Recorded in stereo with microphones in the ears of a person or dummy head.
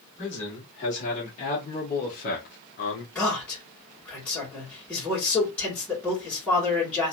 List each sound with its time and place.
0.2 s a man speaking: 35° left (ahead or behind), 2 m; by 3.0 s 50° left (ahead or behind), 0.9 m
3.1 s a man speaking: 5° left (ahead or behind), 2 m